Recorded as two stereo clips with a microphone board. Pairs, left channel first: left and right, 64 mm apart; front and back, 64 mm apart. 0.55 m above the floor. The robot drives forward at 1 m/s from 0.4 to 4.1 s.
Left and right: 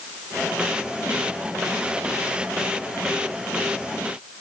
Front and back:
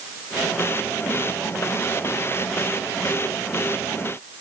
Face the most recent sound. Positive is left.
No sound to turn to.